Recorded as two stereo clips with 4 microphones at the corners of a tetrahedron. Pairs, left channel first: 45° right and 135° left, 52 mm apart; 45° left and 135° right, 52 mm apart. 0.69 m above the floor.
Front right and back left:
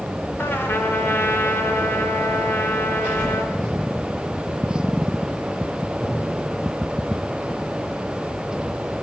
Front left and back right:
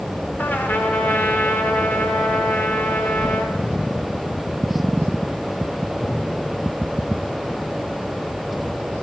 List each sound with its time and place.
0.4 s a trumpet: 5° right, 3 m